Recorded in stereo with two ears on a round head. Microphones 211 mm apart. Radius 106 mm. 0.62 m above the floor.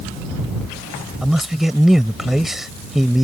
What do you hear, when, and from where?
1.2 s a man speaking: centre (ahead or behind)